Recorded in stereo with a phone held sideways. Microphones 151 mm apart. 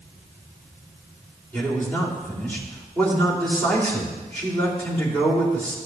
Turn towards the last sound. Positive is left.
turn(degrees=10)  # may be behind; listen again after turning